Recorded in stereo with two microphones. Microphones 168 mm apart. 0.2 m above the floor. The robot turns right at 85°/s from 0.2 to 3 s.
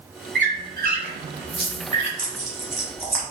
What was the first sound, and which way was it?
A squeak, 70° right (ahead or behind).